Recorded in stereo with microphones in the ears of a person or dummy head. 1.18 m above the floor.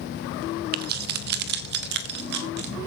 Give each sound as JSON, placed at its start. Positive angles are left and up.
{"t": 0.7, "sound": "keys jangling", "side_deg": -55, "distance_m": 0.8}